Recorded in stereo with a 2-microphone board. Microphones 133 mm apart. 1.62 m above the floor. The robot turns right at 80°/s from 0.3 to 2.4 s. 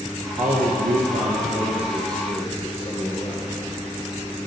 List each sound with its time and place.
0.4 s a man speaking: 125° right, 0.7 m; by 3.6 s 35° left, 0.7 m